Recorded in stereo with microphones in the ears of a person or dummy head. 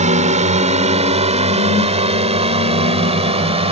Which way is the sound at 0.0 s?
40° right (ahead or behind).